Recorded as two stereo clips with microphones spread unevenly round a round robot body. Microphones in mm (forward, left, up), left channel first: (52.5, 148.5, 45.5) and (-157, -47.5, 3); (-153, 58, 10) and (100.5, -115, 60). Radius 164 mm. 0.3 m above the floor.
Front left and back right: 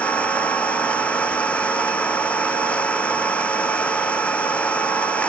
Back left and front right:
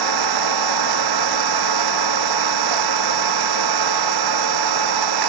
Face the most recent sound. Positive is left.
turn(degrees=-45)